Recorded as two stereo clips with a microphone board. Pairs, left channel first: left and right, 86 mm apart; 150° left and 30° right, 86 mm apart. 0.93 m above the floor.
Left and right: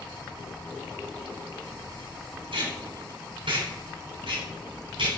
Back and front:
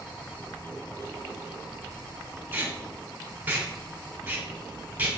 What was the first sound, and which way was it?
Tape being pulled, 95° right.